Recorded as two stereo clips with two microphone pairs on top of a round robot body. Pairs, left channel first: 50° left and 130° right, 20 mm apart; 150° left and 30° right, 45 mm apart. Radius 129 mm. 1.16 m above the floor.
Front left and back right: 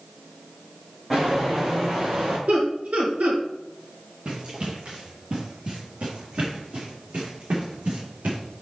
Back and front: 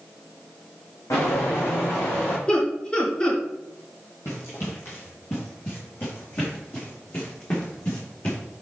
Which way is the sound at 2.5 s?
145° right.